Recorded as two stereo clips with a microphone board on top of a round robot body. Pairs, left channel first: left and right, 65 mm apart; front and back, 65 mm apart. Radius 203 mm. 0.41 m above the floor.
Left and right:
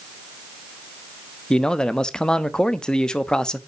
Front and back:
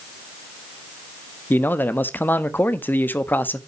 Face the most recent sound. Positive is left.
turn(degrees=20)